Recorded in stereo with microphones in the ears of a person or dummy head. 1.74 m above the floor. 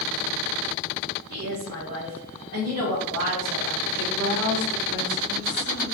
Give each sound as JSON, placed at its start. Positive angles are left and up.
{"t": 1.3, "sound": "a woman speaking", "side_deg": -55, "distance_m": 1.6}
{"t": 4.0, "sound": "a woman speaking", "side_deg": -60, "distance_m": 1.8}